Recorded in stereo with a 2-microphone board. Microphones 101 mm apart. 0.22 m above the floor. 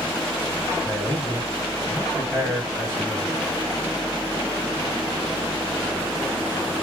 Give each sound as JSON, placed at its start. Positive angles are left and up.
{"t": 0.8, "sound": "a man speaking", "side_deg": -5, "distance_m": 1.3}